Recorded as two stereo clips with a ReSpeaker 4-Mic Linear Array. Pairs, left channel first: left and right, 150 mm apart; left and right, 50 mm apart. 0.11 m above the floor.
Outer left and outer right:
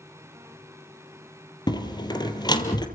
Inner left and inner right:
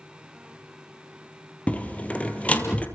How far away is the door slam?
About 2.5 m.